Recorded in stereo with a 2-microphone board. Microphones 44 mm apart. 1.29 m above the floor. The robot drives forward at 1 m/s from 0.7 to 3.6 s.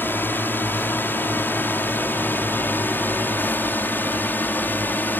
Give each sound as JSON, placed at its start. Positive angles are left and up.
{"t": 0.0, "sound": "a drone", "side_deg": 50}